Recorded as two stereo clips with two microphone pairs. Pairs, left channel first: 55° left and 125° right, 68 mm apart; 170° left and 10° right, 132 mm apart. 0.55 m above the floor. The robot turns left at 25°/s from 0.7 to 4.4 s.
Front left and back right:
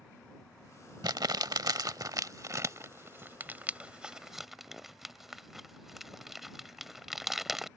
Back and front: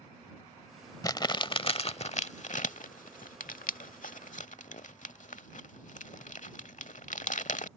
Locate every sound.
1.0 s crumpling: 130° right; by 7.7 s 145° left